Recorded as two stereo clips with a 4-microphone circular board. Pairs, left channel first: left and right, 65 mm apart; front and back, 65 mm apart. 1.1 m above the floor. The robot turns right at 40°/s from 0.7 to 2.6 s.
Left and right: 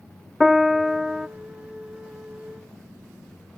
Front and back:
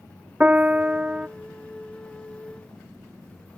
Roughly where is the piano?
Behind.